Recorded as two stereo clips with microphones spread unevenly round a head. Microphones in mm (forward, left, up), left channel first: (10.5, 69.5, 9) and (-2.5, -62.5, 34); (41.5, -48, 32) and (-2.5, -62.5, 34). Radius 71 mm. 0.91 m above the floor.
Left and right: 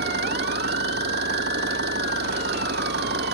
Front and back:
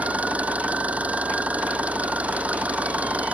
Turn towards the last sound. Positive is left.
turn(degrees=-105)